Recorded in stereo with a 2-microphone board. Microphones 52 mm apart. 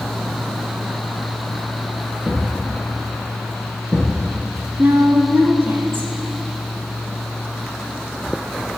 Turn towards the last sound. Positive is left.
turn(degrees=-45)  # may be behind; listen again after turning